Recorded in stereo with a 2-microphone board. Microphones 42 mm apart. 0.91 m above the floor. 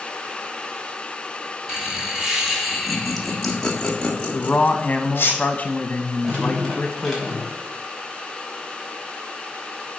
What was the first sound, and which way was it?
Laughter, 15° right (ahead or behind).